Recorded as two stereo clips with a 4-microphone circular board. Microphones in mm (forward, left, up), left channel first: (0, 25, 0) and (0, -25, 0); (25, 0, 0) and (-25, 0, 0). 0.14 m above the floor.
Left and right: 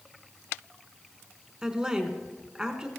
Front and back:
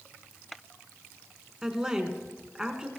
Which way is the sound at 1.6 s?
135° right.